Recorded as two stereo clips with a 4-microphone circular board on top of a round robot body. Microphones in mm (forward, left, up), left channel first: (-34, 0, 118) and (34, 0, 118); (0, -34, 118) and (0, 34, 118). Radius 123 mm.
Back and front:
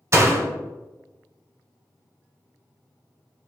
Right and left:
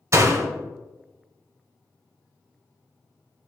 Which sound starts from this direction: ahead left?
A door slam, at 0.1 s.